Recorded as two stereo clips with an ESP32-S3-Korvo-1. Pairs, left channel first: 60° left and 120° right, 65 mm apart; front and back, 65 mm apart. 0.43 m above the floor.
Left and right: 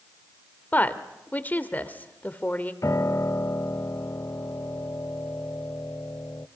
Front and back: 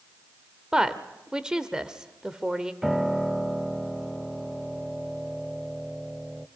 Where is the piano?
100° left, 0.8 m.